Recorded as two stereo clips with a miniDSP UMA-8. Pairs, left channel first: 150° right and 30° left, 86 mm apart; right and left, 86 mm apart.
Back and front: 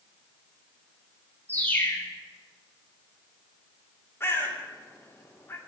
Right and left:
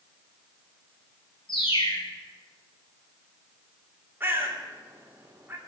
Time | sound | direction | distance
1.5 | a bird | 80° right | 2.5 m
4.2 | a bird | 155° left | 2.5 m